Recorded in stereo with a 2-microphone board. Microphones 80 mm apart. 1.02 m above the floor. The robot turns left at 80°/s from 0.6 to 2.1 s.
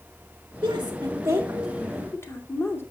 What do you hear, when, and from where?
0.6 s a woman speaking: 95° right, 1.9 m; by 2.8 s 150° left, 1.9 m